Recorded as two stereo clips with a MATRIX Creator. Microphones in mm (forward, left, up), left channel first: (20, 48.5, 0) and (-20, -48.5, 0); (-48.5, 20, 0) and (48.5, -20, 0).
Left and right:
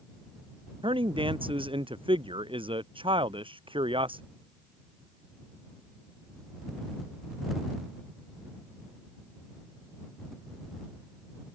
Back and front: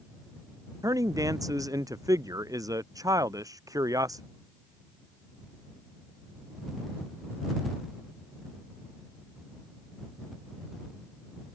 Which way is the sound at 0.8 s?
75° right.